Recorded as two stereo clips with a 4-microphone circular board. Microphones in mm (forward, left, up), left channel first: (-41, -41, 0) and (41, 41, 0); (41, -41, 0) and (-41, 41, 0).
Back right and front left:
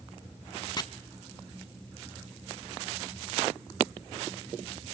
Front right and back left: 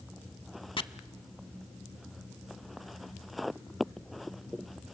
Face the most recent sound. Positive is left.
turn(degrees=-85)